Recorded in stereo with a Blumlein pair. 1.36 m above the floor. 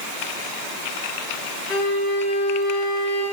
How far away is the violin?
About 1.9 m.